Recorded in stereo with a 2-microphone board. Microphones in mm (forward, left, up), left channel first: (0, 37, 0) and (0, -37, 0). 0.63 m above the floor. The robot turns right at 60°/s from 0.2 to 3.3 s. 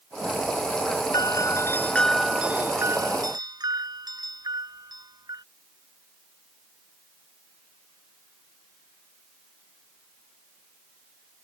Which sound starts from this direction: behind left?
A doorbell, at 1.1 s.